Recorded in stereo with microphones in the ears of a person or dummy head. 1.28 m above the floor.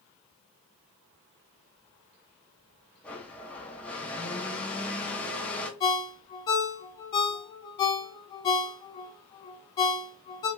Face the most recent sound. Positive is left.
turn(degrees=20)  # may be behind; listen again after turning